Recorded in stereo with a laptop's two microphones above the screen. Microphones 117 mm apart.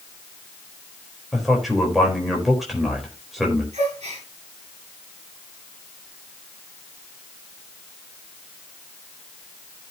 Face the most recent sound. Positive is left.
turn(degrees=-65)  # may be behind; listen again after turning